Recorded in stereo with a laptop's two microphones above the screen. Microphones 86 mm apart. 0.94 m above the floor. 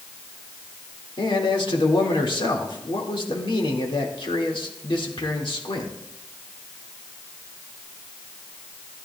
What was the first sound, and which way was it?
A man speaking, 70° left (ahead or behind).